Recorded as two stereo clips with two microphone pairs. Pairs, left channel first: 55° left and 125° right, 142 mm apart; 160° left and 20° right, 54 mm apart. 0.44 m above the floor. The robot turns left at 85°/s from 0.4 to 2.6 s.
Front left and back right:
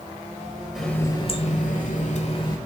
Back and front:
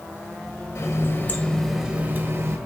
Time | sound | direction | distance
0.8 | a running tap | 145° left | 1.1 m